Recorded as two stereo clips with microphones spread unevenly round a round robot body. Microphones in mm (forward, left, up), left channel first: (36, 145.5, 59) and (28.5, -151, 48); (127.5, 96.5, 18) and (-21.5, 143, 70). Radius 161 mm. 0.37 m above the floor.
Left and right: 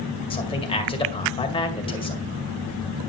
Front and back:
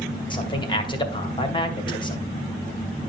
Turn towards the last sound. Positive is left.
turn(degrees=15)